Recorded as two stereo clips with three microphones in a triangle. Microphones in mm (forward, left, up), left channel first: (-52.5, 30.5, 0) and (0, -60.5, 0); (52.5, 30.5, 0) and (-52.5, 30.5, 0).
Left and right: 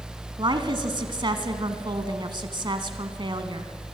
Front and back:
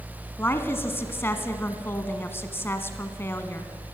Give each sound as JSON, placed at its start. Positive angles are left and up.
{"t": 0.4, "sound": "a woman speaking", "azimuth_deg": -60, "distance_m": 1.4}